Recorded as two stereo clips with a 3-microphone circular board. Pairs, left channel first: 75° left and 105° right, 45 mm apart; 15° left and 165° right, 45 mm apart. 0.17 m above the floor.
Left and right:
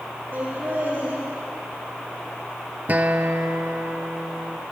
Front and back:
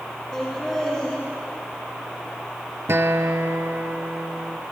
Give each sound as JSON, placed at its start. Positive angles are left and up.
{"t": 0.3, "sound": "laughter", "azimuth_deg": -75, "distance_m": 6.5}
{"t": 2.9, "sound": "a guitar", "azimuth_deg": -155, "distance_m": 0.6}